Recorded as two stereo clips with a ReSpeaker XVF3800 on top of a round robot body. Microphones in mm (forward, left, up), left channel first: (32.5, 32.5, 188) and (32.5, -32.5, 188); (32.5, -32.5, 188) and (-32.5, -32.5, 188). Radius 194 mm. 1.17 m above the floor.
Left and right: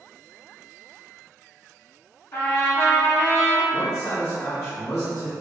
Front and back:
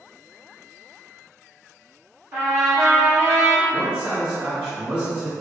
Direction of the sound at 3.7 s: 115° left.